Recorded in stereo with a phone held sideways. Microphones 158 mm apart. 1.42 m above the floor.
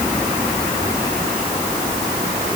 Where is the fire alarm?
No fire alarm in this recording.